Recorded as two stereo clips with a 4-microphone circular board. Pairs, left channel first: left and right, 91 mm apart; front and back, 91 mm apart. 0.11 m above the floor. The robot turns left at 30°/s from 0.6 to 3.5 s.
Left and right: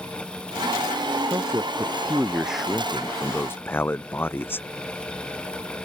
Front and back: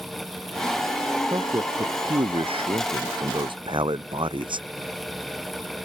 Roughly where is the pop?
I don't hear a pop.